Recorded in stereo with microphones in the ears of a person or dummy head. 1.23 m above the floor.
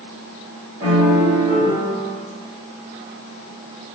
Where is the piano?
10° right (ahead or behind), 1.2 m.